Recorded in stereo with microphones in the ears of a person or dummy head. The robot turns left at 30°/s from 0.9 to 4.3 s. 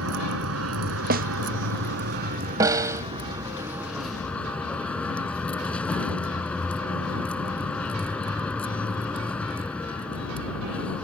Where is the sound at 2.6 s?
15° right (ahead or behind).